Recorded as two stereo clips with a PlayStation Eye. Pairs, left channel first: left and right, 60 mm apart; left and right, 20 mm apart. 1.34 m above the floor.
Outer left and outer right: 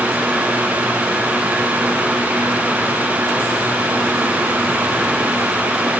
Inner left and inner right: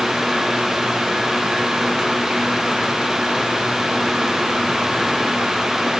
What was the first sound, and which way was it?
Only background noise.